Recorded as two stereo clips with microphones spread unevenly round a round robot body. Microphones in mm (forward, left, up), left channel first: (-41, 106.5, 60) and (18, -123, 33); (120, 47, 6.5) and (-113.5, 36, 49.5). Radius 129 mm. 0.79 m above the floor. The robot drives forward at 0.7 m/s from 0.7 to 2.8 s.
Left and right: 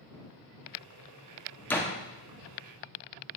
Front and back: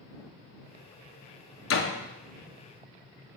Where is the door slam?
20° left, 1.2 m.